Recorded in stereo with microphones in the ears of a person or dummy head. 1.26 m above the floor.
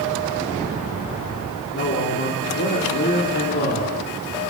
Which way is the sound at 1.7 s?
45° left (ahead or behind).